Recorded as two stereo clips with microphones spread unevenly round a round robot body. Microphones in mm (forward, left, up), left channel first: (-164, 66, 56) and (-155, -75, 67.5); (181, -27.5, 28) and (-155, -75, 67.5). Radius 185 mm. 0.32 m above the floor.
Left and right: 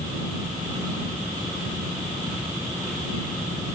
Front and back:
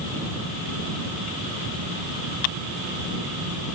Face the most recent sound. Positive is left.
No sound to turn to.